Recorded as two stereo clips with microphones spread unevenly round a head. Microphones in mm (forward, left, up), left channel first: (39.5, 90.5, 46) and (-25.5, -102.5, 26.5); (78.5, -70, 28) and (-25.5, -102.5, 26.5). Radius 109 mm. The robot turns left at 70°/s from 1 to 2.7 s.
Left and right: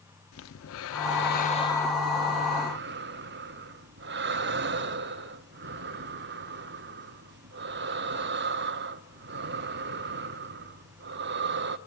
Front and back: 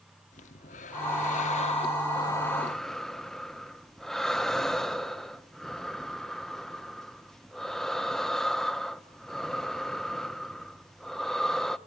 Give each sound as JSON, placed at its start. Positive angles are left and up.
{"t": 0.3, "sound": "breathing", "azimuth_deg": 50, "distance_m": 1.1}